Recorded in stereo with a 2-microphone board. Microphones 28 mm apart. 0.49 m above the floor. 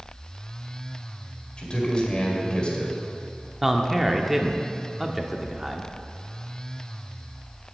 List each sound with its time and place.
1.6 s a man speaking: 40° left (ahead or behind), 2.0 m
3.6 s a man speaking: 5° right (ahead or behind), 0.7 m